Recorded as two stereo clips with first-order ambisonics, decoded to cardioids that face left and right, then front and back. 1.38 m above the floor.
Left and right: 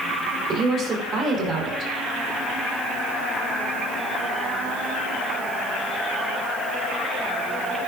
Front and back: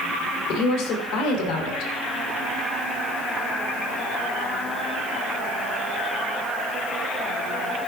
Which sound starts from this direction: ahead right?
A woman speaking, at 0.5 s.